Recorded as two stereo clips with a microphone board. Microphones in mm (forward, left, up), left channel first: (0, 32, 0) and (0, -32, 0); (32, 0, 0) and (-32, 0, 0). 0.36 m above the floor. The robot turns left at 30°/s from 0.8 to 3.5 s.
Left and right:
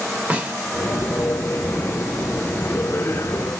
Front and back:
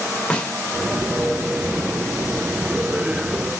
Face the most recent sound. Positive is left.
turn(degrees=-130)